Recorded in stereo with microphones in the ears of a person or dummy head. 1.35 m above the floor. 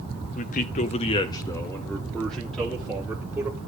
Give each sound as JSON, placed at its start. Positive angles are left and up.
{"t": 0.3, "sound": "a man speaking", "side_deg": 35, "distance_m": 0.6}